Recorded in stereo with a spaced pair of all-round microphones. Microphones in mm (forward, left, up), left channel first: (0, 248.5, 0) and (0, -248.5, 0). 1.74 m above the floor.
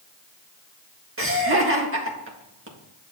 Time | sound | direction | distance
1.2 | laughter | 25° right (ahead or behind) | 1.7 m